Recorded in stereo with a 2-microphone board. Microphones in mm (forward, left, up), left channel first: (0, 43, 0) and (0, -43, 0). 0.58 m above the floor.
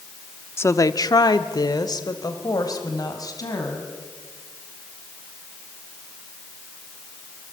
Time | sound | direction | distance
0.6 | a woman speaking | 30° left (ahead or behind) | 0.9 m